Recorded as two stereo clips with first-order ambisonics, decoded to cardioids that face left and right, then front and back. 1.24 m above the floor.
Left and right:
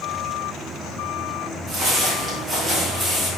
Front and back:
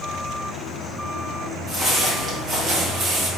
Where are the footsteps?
110° right, 1.5 m; by 3.3 s 175° right, 1.3 m.